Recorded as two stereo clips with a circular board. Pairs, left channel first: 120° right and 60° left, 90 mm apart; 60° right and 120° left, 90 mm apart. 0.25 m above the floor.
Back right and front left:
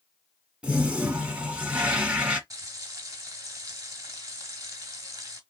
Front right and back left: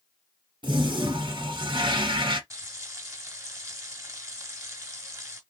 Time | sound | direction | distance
0.6 | a toilet flushing | 135° left | 1.2 m
2.5 | frying | 90° left | 1.6 m